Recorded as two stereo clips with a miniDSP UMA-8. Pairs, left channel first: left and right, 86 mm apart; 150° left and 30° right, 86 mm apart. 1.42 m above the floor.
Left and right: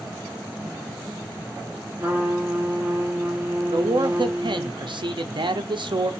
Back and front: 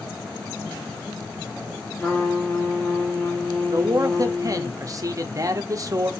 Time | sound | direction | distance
2.0 | a trumpet | 145° right | 1.1 m
3.7 | a man speaking | 75° right | 0.6 m